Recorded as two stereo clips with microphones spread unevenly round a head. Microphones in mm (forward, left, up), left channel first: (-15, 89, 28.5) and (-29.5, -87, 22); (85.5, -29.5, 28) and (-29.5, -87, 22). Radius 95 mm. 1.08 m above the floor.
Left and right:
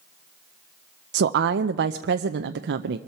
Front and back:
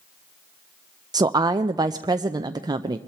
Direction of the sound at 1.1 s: 95° right.